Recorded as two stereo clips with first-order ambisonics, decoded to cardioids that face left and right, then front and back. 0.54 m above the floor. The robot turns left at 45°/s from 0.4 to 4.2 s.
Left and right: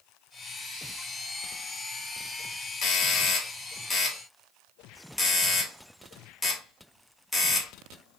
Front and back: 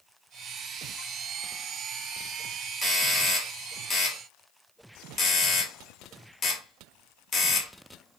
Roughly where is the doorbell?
Left.